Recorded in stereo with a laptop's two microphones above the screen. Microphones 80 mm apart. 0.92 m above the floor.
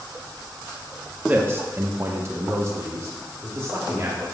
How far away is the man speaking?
About 0.7 m.